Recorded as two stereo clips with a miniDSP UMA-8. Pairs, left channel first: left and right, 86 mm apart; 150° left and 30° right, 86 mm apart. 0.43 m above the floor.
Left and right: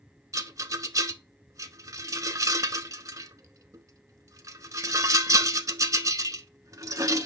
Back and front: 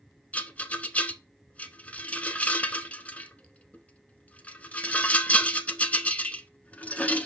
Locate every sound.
0.3 s a rattle: 140° right, 0.7 m